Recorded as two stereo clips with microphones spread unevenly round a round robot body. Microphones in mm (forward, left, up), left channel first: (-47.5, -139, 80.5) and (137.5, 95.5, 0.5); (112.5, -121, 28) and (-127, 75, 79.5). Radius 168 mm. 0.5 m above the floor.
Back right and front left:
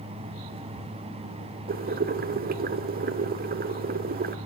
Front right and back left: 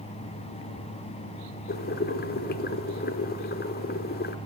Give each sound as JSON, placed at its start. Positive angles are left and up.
{"t": 1.7, "sound": "boiling", "azimuth_deg": 10, "distance_m": 0.9}